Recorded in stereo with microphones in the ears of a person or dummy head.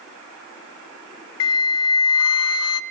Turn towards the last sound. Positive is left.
turn(degrees=75)  # may be behind; listen again after turning